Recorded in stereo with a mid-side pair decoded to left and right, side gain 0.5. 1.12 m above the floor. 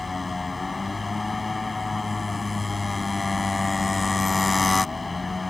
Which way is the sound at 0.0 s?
20° left.